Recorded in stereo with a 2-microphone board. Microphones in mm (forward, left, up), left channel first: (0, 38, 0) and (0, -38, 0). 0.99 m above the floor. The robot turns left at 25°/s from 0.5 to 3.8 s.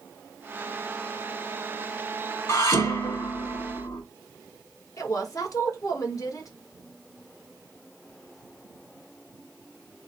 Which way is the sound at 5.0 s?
50° left (ahead or behind).